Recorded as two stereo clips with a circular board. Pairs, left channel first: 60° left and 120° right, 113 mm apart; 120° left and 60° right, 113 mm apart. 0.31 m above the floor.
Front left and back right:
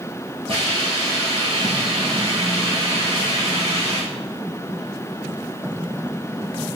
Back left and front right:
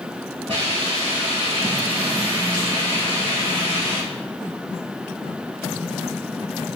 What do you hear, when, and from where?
0.5 s a hiss: 80° right, 2 m